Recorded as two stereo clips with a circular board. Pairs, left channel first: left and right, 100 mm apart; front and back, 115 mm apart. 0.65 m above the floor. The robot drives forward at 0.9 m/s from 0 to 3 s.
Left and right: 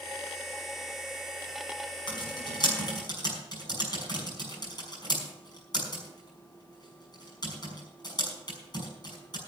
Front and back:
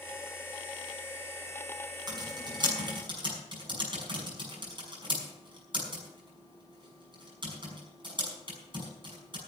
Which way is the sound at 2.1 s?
130° left.